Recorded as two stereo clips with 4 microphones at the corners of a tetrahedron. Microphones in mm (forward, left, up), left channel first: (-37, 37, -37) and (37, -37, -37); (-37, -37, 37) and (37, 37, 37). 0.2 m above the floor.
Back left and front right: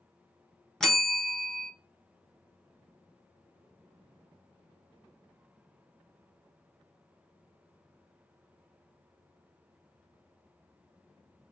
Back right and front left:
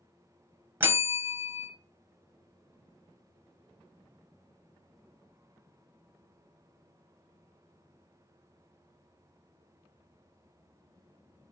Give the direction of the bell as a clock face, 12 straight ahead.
10 o'clock.